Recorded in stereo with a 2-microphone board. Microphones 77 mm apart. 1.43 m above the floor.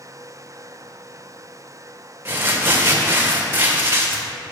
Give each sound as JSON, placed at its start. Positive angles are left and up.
{"t": 2.2, "sound": "crumpling", "side_deg": -25, "distance_m": 1.5}